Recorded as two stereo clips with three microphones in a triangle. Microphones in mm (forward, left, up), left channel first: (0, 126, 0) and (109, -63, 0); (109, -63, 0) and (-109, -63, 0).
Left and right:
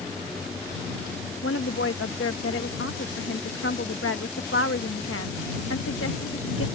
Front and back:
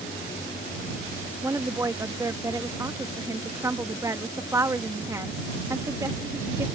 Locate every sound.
1.4 s a woman speaking: 105° left